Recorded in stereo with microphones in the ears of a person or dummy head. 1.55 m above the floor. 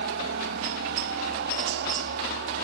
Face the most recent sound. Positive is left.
turn(degrees=-60)  # may be behind; listen again after turning